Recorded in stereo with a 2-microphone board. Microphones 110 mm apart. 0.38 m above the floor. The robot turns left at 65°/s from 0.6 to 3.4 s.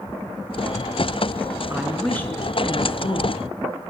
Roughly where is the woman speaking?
Behind.